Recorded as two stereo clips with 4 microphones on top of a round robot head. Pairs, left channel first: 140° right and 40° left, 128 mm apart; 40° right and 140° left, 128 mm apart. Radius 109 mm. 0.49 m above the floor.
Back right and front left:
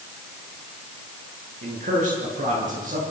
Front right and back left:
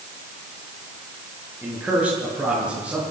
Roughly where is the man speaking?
Ahead left.